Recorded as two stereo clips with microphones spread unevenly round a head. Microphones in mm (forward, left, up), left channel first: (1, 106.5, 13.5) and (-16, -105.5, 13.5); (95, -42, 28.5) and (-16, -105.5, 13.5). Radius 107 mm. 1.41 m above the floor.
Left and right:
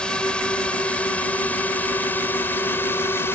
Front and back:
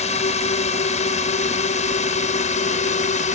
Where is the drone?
Straight ahead; by 3.4 s 5° left.